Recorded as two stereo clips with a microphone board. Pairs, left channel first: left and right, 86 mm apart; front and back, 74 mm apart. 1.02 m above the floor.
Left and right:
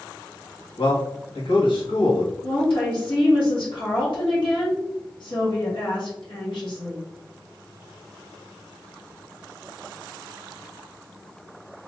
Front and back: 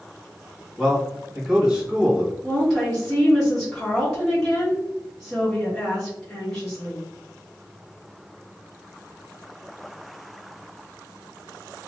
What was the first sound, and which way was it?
A man speaking, 100° left.